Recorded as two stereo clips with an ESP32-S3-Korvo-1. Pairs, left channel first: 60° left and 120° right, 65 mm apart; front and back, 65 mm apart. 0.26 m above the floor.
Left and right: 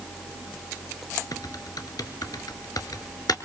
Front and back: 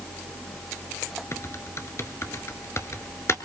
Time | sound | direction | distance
1.3 | typing on a keyboard | 45° left | 1.2 m